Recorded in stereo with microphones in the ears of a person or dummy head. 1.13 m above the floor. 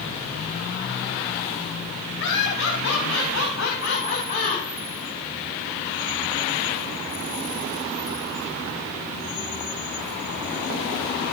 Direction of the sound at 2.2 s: 75° left (ahead or behind).